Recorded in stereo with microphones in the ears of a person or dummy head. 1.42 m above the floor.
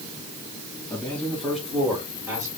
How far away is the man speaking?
About 2.5 m.